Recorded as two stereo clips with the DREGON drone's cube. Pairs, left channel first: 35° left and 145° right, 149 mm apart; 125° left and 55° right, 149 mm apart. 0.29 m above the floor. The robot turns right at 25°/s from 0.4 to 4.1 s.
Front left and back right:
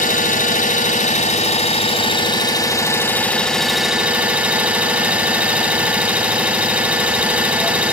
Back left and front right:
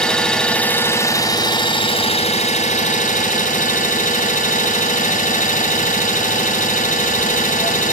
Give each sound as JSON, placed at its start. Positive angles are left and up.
{"t": 0.0, "sound": "an engine running", "azimuth_deg": 40, "distance_m": 1.9}